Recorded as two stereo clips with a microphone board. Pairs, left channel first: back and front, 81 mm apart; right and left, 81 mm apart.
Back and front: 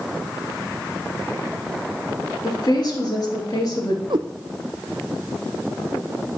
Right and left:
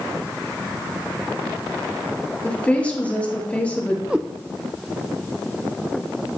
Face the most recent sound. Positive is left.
turn(degrees=10)